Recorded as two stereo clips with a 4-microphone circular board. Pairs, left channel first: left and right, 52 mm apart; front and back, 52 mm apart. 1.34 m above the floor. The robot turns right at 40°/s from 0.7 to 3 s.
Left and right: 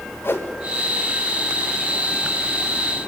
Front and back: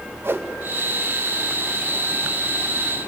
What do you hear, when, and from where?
0.2 s a whoosh: 135° left, 1.5 m